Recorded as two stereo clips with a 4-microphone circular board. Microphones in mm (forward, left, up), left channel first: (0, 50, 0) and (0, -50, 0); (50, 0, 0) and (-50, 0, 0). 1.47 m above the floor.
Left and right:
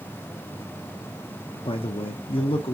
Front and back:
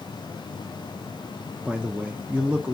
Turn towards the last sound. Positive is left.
turn(degrees=105)